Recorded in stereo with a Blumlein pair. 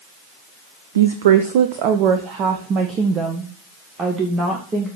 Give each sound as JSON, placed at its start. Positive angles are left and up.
{"t": 0.9, "sound": "a woman speaking", "azimuth_deg": -65, "distance_m": 1.0}